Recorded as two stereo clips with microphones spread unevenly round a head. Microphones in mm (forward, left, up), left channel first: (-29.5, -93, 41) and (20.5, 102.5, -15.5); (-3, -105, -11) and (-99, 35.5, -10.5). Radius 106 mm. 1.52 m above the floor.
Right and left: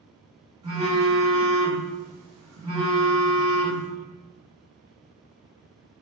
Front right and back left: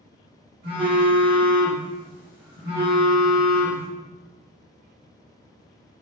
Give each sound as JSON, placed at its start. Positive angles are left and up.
{"t": 0.6, "sound": "a phone buzzing", "azimuth_deg": 155, "distance_m": 1.9}